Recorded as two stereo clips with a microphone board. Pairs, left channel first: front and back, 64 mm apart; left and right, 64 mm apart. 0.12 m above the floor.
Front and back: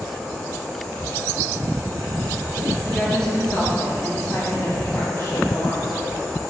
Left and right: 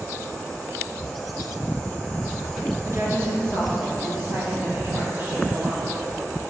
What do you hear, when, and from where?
2.9 s a woman speaking: 85° right, 1.8 m; by 6.0 s 30° right, 3 m